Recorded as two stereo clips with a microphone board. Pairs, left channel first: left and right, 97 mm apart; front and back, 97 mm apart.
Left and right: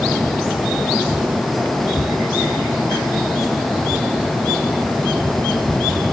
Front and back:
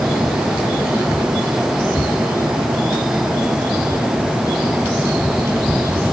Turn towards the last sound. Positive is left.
No sound to turn to.